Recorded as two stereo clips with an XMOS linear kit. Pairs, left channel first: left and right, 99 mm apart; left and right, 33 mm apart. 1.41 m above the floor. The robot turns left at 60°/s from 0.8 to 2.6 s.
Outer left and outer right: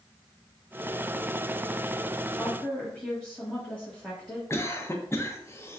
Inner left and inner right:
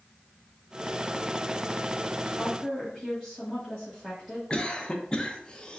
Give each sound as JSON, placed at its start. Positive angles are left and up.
{"t": 2.3, "sound": "a woman speaking", "side_deg": -5, "distance_m": 1.2}
{"t": 4.5, "sound": "a cough", "side_deg": 30, "distance_m": 0.6}